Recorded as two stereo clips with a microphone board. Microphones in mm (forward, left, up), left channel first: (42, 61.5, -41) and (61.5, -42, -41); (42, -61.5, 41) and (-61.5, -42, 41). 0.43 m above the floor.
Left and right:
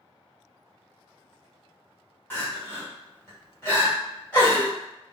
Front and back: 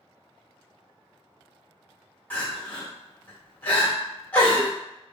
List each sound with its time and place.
2.3 s crying: 45° left, 1.2 m